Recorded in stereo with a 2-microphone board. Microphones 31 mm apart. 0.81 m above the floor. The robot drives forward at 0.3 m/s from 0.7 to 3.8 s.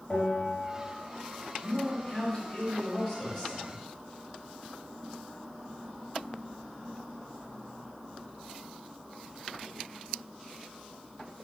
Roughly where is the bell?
Left.